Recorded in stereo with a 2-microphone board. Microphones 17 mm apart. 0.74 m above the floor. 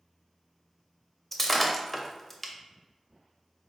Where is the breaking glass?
5° left (ahead or behind), 0.5 m.